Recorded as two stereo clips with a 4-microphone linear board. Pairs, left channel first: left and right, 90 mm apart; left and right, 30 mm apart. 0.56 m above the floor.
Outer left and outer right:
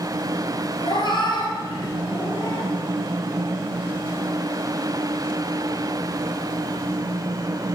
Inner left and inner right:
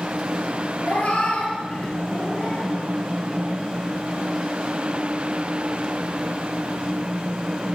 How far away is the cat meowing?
About 1.5 m.